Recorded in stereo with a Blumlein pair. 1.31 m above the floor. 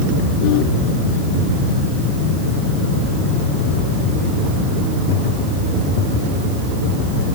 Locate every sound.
Only background noise.